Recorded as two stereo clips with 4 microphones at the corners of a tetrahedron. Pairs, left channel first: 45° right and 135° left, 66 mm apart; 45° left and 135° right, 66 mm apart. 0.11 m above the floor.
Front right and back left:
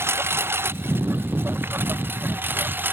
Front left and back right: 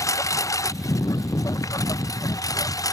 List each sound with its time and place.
0.0 s a lawn mower: 85° left; by 2.9 s 75° left